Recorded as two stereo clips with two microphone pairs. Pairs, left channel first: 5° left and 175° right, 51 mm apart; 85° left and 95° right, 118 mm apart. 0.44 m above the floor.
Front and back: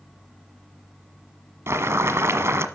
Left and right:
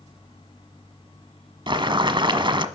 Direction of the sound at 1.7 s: 145° right.